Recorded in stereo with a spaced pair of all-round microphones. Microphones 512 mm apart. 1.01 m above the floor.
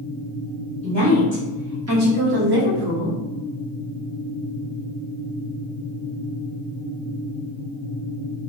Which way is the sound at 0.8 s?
5° right (ahead or behind).